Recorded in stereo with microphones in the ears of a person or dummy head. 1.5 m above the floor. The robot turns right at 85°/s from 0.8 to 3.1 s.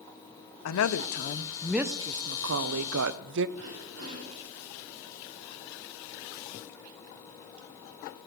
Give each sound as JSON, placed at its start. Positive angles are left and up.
{"t": 0.7, "sound": "a woman speaking", "azimuth_deg": 100, "distance_m": 0.7}
{"t": 3.6, "sound": "throat clearing", "side_deg": -90, "distance_m": 5.5}